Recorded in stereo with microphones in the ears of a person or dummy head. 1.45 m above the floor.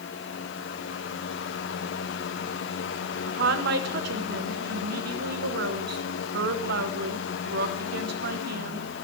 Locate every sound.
0.0 s a fan: 70° left (ahead or behind), 1.1 m
3.3 s a woman speaking: 65° right (ahead or behind), 1.1 m